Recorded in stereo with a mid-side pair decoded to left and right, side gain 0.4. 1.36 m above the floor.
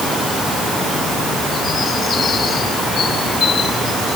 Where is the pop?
No pop in this recording.